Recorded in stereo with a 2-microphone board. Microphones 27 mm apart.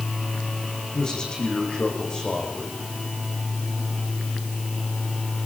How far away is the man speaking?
About 10 m.